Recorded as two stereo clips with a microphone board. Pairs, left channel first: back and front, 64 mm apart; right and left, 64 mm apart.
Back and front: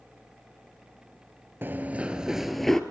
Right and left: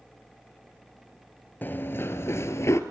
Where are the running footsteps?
45° right, 1.4 m; by 2.8 s 100° right, 1.5 m.